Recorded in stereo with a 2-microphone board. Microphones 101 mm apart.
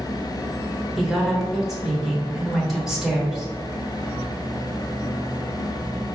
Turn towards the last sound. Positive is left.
turn(degrees=-5)  # may be behind; listen again after turning